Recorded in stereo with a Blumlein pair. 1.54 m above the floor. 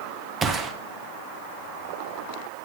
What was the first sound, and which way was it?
A gunshot, 20° right.